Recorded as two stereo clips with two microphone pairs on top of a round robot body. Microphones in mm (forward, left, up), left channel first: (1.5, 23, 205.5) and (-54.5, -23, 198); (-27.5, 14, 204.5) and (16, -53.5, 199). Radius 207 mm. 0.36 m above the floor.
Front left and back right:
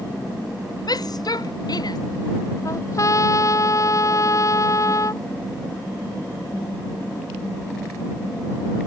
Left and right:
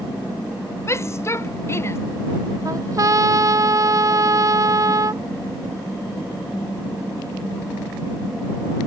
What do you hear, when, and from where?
0.9 s a shout: 65° left
2.6 s a trumpet: 10° right